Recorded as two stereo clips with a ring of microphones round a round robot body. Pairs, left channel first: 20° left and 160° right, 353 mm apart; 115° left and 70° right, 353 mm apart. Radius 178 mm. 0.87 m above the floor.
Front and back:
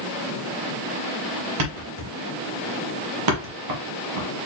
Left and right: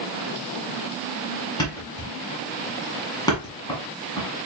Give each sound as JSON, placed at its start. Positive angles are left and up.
{"t": 1.6, "sound": "a thud", "azimuth_deg": -170, "distance_m": 1.3}